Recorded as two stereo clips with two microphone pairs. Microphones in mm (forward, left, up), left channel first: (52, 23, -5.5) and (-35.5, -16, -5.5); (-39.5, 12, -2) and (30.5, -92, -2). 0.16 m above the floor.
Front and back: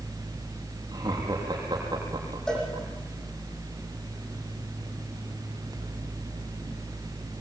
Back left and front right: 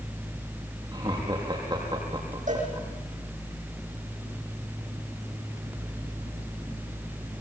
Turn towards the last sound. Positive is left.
turn(degrees=-60)